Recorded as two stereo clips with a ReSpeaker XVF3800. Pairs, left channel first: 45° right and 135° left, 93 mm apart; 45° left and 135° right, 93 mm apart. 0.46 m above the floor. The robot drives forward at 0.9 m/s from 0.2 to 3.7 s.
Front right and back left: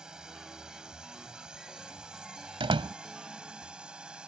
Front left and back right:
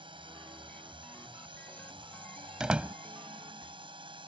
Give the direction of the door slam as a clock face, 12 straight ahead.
7 o'clock.